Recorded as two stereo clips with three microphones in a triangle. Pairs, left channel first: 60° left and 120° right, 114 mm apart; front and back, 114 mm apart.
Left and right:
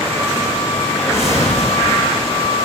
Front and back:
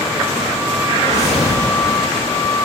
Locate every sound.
0.9 s a whoosh: 5° right, 6.5 m